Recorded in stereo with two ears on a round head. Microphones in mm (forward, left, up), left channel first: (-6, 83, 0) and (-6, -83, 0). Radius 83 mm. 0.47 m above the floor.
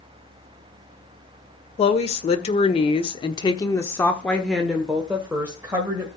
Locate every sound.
1.8 s a woman speaking: 35° left (ahead or behind), 1.7 m; by 6.1 s 10° right (ahead or behind), 2 m